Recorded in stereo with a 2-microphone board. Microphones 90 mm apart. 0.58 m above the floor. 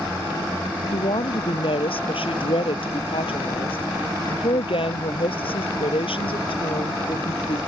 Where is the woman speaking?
80° left.